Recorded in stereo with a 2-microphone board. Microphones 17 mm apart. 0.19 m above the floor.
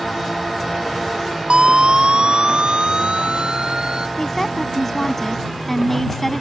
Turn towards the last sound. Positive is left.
turn(degrees=15)  # may be behind; listen again after turning